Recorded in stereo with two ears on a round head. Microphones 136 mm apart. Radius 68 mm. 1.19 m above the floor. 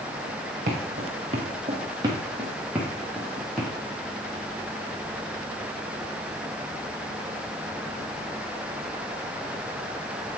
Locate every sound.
0.7 s footsteps: 50° right (ahead or behind), 2.5 m; by 3.7 s 5° left (ahead or behind), 3 m